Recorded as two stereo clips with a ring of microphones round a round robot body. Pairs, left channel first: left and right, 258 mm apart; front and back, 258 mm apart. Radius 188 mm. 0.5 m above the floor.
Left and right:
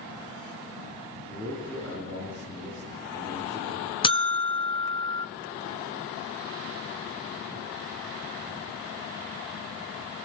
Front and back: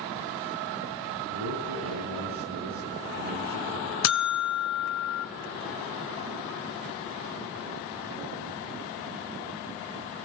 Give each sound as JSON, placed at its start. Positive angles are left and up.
{"t": 1.3, "sound": "a man speaking", "azimuth_deg": 175, "distance_m": 7.0}
{"t": 4.0, "sound": "a buzzer", "azimuth_deg": 20, "distance_m": 1.2}